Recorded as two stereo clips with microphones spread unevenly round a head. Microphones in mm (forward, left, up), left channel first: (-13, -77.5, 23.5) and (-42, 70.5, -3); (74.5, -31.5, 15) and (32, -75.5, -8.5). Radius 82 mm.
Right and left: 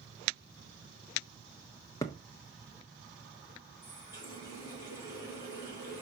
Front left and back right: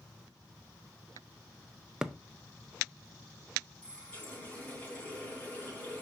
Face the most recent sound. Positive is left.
turn(degrees=-10)